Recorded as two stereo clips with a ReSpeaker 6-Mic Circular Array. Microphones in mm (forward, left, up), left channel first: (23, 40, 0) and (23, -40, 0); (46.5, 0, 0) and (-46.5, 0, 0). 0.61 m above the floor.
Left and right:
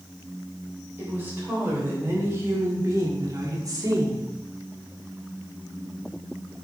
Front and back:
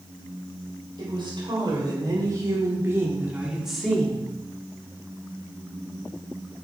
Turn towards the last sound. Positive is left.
turn(degrees=-70)